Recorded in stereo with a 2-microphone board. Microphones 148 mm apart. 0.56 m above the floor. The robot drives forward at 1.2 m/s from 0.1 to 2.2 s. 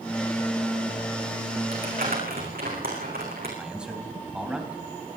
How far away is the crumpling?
About 7.5 m.